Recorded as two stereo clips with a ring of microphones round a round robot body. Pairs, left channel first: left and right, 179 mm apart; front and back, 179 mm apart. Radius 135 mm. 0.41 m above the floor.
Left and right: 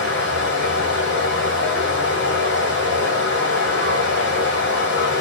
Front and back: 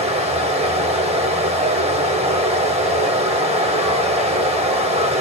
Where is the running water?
125° left, 1.1 m.